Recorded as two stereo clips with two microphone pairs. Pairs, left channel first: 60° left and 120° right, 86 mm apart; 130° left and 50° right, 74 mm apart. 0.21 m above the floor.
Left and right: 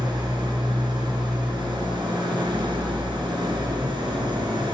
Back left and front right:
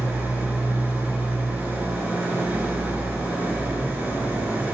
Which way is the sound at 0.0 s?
115° right.